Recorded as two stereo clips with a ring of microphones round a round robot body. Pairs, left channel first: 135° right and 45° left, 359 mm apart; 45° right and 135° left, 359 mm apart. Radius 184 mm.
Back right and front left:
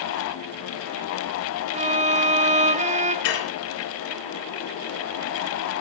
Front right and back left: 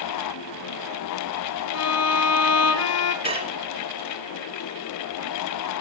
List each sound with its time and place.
1.7 s a violin: 20° right, 1.2 m
3.2 s dishes clattering: 150° right, 3.5 m